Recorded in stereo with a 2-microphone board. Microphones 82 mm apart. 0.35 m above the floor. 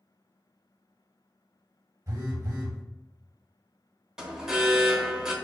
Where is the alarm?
10° right (ahead or behind), 0.6 m.